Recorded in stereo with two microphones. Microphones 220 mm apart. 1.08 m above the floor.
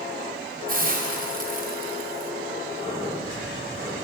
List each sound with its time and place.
0.7 s a hiss: 40° right (ahead or behind), 0.6 m
2.8 s breathing: 20° left (ahead or behind), 1.1 m